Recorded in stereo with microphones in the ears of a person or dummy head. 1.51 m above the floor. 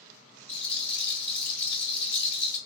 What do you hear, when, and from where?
0.5 s a rattle: 10° left (ahead or behind), 1.6 m